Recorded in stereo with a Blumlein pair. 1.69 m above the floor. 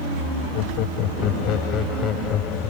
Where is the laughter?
40° left; by 2.7 s 25° left.